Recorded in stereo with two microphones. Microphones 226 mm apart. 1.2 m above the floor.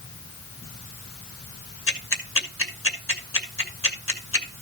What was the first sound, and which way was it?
Ticking, 65° left (ahead or behind).